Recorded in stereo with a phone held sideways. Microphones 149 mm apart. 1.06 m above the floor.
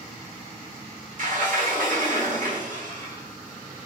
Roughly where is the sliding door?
Right.